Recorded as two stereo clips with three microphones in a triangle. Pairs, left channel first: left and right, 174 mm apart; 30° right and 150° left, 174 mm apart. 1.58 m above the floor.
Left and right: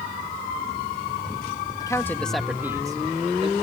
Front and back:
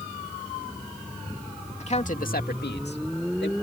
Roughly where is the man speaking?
Ahead.